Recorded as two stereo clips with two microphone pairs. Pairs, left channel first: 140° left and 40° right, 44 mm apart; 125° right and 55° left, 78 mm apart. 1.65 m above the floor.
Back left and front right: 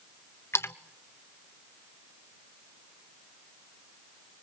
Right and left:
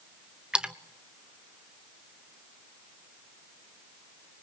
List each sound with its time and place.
0.5 s a splash: 135° left, 1.1 m